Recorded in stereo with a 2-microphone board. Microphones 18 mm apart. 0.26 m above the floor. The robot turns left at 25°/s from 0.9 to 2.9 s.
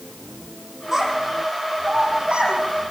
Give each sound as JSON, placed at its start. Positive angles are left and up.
{"t": 0.9, "sound": "a child speaking", "side_deg": -25, "distance_m": 8.0}